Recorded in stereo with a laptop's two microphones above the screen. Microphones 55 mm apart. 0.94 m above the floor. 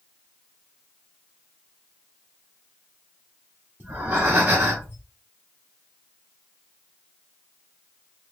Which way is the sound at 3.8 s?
35° right (ahead or behind).